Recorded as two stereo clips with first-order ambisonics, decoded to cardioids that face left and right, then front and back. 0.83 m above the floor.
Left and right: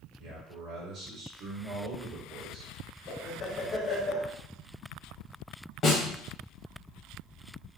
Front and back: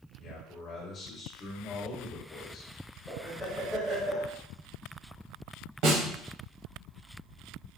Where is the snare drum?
155° left, 1.3 m.